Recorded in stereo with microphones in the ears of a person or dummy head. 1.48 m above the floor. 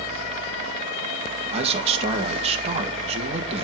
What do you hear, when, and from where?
1.5 s a man speaking: 35° right (ahead or behind), 1.2 m